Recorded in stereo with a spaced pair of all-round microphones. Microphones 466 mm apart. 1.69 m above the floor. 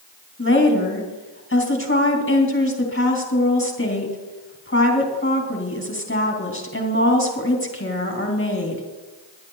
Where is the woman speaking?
25° left (ahead or behind), 2.5 m.